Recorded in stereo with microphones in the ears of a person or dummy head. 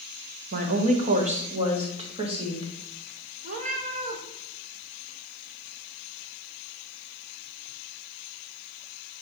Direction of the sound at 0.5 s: 50° right (ahead or behind).